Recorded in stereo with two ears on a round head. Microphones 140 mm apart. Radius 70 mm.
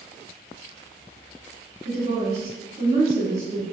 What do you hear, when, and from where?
1.9 s a woman speaking: 45° right (ahead or behind), 1.1 m